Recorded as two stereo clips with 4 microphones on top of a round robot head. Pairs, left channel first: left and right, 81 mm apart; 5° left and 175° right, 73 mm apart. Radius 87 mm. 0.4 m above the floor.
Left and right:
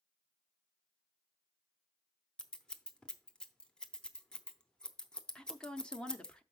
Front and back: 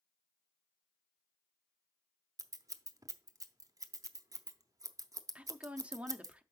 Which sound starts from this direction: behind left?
A woman speaking, at 5.3 s.